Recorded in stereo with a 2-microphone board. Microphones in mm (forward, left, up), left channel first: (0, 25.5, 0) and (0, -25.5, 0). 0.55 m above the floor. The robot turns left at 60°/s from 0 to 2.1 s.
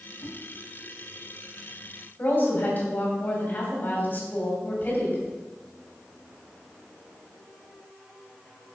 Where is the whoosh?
80° left, 4.5 m; by 0.3 s 85° left, 4.5 m.